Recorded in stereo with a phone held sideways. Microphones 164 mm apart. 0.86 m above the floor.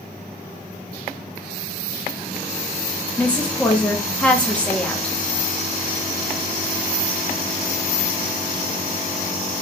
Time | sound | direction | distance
3.2 | a woman speaking | 10° left (ahead or behind) | 0.9 m